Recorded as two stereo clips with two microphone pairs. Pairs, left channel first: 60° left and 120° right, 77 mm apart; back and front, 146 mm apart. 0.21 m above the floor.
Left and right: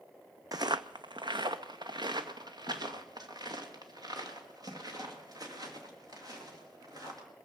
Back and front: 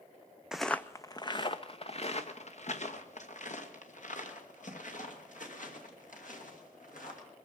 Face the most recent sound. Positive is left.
turn(degrees=-155)